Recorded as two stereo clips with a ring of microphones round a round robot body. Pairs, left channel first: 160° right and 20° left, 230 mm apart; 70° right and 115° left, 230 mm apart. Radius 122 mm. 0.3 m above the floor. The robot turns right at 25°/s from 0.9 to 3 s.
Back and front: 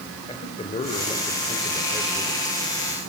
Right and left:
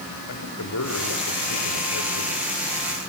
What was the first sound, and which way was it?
A man speaking, 90° right.